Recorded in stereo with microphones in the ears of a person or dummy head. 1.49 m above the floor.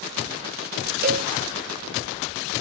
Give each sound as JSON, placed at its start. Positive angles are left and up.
{"t": 1.0, "sound": "a cowbell", "side_deg": -50, "distance_m": 0.7}